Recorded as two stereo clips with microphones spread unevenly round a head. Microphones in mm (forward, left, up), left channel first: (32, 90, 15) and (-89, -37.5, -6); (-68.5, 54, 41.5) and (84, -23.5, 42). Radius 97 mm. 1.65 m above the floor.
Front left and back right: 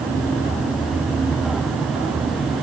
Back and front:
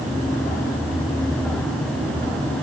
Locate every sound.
Only background noise.